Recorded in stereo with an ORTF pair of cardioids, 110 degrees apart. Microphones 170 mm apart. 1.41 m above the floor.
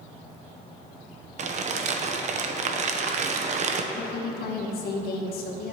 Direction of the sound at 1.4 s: 45° right.